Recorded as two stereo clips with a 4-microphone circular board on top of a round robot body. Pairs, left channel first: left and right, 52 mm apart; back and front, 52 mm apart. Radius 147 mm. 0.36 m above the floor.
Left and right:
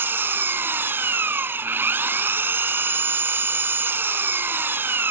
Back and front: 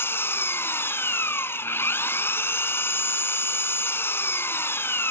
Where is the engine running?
135° right.